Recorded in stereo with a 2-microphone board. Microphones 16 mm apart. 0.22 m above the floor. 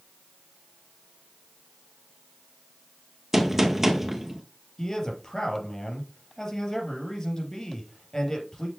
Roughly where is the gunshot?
Centre.